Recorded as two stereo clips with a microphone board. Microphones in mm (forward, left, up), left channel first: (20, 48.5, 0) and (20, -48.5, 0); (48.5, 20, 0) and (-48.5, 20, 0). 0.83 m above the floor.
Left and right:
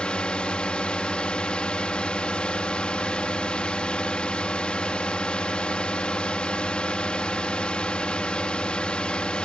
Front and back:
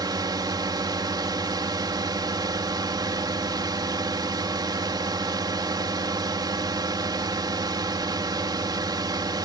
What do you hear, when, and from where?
0.0 s a drone: 165° left